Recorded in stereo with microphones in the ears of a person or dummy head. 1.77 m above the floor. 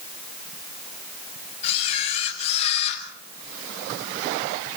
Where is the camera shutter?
35° left (ahead or behind), 7 m.